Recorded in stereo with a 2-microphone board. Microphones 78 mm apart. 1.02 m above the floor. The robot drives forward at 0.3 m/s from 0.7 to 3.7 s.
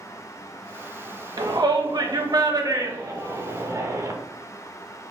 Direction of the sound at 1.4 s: 65° right (ahead or behind).